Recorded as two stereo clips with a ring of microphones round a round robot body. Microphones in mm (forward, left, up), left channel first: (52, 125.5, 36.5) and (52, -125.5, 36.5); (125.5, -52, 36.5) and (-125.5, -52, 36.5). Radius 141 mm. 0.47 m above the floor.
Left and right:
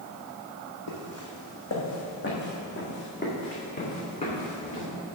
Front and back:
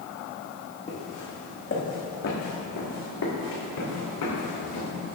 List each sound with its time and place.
0.9 s footsteps: 70° left, 1.8 m; by 4.9 s 25° left, 3.5 m